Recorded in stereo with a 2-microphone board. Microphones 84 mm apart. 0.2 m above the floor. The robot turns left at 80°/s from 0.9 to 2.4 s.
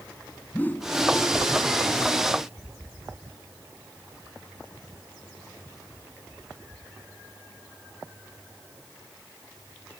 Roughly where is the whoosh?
Left.